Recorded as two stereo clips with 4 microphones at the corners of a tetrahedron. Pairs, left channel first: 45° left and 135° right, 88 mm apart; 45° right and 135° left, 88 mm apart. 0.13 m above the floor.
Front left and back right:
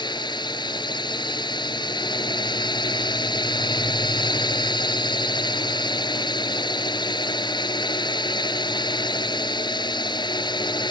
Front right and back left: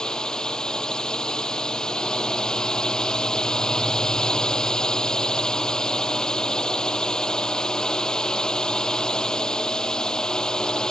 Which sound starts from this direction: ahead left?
A drone, at 0.0 s.